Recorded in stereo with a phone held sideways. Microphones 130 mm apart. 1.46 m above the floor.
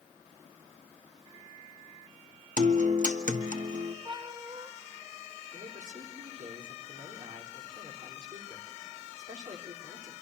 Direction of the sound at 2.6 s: 75° right (ahead or behind).